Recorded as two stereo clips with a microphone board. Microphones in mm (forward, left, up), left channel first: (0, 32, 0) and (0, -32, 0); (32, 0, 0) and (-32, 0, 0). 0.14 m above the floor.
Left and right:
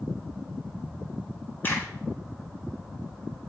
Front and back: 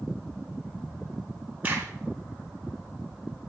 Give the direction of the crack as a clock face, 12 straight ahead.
8 o'clock.